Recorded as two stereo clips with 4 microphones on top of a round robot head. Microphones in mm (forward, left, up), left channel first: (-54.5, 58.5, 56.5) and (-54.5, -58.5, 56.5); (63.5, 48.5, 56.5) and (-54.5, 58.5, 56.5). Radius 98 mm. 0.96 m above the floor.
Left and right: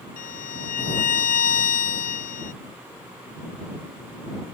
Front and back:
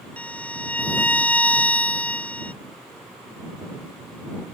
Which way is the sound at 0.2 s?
75° left.